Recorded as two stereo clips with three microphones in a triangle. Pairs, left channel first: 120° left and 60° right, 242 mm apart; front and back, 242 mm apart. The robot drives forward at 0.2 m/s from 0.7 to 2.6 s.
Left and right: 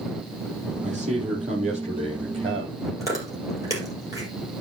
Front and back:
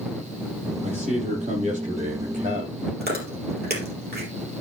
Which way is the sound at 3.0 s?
135° right.